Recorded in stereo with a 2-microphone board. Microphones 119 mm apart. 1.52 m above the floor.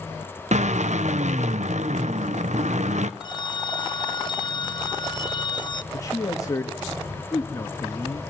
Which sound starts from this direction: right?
A drill, at 0.5 s.